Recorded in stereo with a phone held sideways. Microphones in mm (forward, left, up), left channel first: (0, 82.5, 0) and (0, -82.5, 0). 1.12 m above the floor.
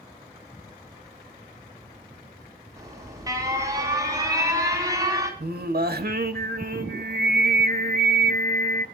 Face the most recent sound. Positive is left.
turn(degrees=-70)  # may be behind; listen again after turning